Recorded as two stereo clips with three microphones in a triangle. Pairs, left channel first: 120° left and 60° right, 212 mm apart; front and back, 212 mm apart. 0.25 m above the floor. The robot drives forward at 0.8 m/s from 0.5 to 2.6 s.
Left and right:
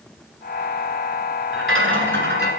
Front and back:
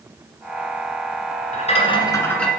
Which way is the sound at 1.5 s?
55° right.